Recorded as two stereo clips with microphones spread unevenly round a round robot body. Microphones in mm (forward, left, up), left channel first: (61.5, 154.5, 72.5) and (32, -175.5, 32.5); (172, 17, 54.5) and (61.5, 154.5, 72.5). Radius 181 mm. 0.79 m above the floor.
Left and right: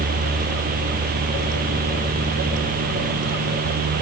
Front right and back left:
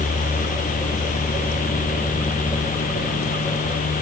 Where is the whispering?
No whispering in this recording.